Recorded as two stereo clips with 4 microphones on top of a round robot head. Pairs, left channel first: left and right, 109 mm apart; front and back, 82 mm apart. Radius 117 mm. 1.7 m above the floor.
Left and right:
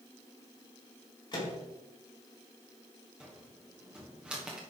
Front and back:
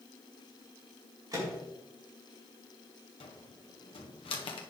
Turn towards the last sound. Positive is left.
turn(degrees=-10)